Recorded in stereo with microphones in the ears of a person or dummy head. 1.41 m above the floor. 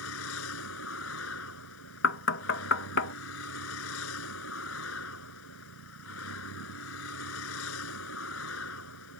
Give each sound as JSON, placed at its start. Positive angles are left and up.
{"t": 0.0, "sound": "a vehicle", "side_deg": 75}
{"t": 2.0, "sound": "knocking", "side_deg": 65}